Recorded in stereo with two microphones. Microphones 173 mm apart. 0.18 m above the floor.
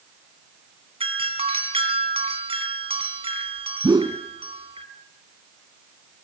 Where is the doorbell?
35° right (ahead or behind), 2.5 m.